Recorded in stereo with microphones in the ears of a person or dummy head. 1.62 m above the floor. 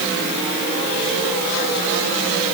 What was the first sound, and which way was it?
Only background noise.